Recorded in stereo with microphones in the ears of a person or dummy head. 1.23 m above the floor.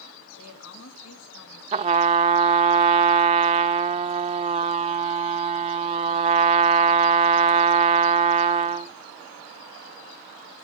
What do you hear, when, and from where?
0.4 s a woman speaking: 85° left, 2 m
1.7 s a trumpet: 30° right (ahead or behind), 0.6 m